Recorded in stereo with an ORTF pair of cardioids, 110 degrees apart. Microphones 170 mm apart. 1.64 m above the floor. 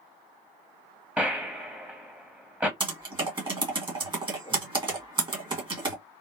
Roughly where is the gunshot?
Ahead.